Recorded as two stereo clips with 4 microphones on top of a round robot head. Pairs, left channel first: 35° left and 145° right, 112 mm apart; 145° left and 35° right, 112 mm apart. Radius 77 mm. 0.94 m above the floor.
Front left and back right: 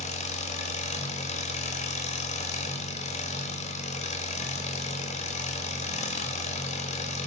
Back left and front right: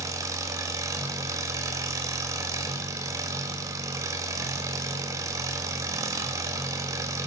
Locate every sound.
0.0 s an engine running: 25° left, 1.3 m